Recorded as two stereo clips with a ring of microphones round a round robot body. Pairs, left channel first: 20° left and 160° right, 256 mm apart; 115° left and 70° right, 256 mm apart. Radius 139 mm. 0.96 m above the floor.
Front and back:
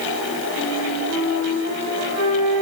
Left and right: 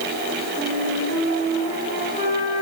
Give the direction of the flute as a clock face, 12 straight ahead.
5 o'clock.